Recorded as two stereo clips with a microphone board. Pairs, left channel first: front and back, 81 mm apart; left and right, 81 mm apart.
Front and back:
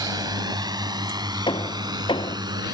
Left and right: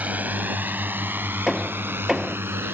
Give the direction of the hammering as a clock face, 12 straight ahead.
12 o'clock.